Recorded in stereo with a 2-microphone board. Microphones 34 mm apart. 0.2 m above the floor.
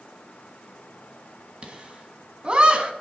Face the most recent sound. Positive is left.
turn(degrees=-35)  # may be behind; listen again after turning